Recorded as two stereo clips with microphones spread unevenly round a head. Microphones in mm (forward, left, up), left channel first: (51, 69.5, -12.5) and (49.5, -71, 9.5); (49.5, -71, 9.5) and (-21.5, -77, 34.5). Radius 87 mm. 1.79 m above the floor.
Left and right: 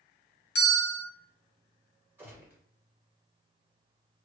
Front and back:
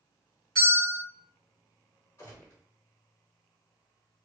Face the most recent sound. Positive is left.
turn(degrees=-45)